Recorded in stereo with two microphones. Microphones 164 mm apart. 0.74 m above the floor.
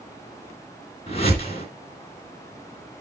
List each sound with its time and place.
1.1 s a whoosh: 40° left (ahead or behind), 3 m